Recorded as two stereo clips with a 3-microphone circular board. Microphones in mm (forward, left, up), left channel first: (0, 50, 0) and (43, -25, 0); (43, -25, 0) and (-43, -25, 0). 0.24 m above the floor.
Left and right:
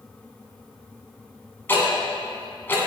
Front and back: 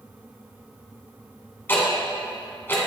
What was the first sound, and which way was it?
Ticking, 60° left.